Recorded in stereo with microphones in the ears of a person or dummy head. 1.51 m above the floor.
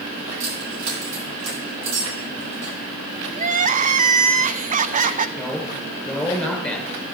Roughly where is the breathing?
No breathing in this recording.